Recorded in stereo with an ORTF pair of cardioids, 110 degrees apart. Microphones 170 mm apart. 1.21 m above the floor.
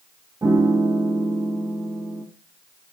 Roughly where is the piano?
Ahead.